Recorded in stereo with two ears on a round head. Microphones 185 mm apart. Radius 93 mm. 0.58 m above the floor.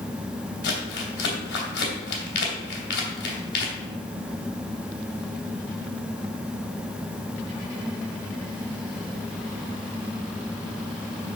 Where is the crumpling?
55° left (ahead or behind), 2.5 m.